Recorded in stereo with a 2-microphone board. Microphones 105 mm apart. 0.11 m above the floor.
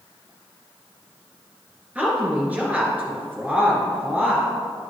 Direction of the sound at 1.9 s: 15° right (ahead or behind).